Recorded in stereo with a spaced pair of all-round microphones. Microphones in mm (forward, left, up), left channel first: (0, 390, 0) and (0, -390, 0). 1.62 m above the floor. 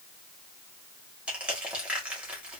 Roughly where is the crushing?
Centre.